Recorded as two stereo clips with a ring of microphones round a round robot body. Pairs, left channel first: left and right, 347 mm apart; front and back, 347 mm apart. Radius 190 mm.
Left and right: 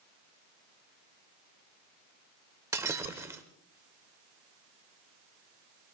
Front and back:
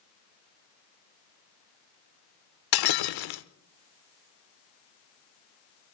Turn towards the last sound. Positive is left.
turn(degrees=-10)